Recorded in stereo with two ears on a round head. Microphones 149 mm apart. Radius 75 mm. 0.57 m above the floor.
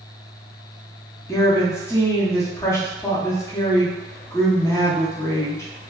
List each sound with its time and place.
1.3 s a woman speaking: 15° left (ahead or behind), 0.6 m